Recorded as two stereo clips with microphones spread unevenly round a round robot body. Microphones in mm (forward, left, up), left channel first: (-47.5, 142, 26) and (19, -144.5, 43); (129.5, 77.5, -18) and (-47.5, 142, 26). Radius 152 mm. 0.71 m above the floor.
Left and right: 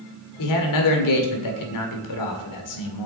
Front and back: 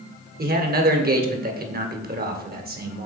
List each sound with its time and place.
0.4 s a man speaking: 115° left, 1.9 m